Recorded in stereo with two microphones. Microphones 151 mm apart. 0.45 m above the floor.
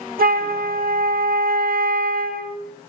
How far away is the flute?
About 0.7 m.